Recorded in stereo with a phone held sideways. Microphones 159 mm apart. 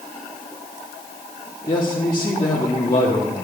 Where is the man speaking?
30° left (ahead or behind), 2 m.